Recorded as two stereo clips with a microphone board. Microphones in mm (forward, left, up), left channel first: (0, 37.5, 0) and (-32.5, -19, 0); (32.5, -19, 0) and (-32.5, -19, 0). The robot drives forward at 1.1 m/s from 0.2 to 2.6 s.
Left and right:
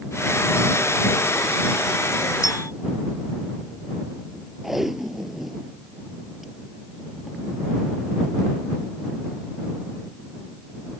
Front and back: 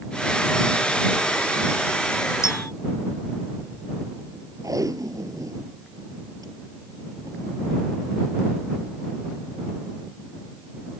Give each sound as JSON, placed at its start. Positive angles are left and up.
{"t": 2.4, "sound": "a clink", "azimuth_deg": 35}
{"t": 4.6, "sound": "tape being pulled", "azimuth_deg": 155}